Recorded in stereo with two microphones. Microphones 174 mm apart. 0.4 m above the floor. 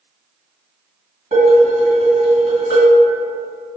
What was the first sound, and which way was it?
Dishes clattering, 55° right (ahead or behind).